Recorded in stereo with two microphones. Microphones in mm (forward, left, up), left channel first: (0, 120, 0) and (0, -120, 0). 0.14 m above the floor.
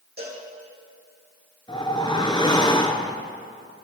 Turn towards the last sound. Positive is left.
turn(degrees=20)  # may be behind; listen again after turning